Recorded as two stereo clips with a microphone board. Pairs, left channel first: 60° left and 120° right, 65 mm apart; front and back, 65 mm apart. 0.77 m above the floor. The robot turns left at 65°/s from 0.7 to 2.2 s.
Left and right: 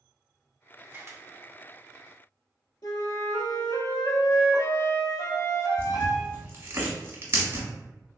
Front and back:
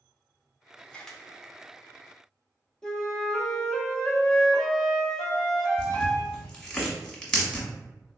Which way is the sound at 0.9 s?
70° right.